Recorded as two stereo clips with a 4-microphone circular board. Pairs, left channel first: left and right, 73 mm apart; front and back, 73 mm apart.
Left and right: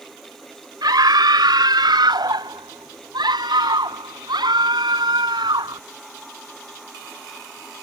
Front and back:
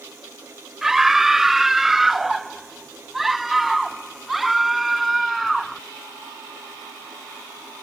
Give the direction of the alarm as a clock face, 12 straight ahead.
I don't hear an alarm.